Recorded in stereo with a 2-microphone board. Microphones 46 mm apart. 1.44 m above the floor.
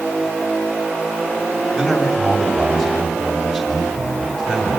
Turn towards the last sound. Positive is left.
turn(degrees=5)  # may be behind; listen again after turning